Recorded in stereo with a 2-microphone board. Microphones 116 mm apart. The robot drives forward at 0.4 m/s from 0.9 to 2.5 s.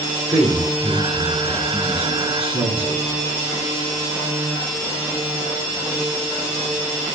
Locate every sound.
0.3 s a man speaking: 60° right (ahead or behind), 6.5 m; by 3.5 s 55° right (ahead or behind), 7 m